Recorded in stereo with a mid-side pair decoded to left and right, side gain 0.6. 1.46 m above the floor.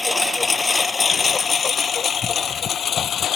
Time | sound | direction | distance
0.0 | a lawn mower | 15° left | ?